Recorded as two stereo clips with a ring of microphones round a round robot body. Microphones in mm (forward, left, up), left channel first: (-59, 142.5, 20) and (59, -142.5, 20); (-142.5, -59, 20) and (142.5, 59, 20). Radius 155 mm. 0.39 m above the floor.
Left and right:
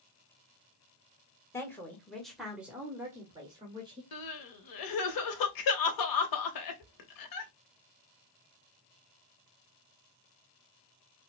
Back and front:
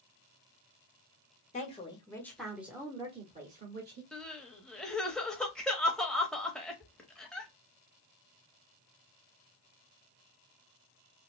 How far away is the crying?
About 0.8 m.